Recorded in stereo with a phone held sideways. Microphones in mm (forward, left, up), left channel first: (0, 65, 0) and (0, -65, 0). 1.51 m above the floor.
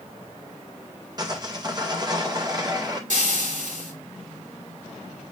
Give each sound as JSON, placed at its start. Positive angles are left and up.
{"t": 1.2, "sound": "sawing", "side_deg": -30, "distance_m": 2.0}
{"t": 3.1, "sound": "frying", "side_deg": -80, "distance_m": 3.5}